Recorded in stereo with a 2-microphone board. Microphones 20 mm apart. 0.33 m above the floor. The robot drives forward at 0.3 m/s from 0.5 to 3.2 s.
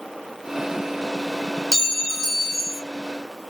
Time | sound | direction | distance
1.7 | a clink | 30° left (ahead or behind) | 0.7 m